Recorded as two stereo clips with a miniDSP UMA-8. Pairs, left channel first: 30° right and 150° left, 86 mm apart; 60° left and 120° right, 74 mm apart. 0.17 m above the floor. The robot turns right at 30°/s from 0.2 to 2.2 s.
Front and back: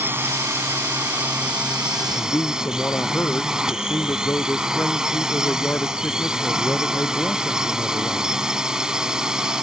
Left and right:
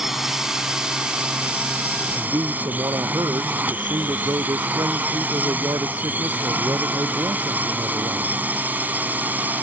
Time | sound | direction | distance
0.0 | a drone | 160° left | ?
2.1 | a man speaking | 95° right | ?